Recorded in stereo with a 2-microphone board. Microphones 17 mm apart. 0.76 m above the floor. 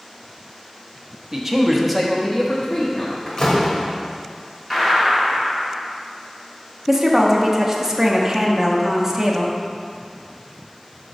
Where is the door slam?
45° left (ahead or behind), 1.4 m.